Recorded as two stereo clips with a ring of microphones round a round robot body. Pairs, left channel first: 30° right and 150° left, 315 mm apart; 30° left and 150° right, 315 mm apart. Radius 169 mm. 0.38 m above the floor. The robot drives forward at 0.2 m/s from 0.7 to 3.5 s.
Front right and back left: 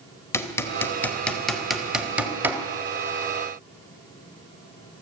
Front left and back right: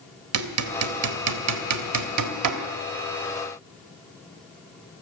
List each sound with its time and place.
0.3 s hammering: 110° right, 1.2 m; by 2.6 s 130° right, 1.4 m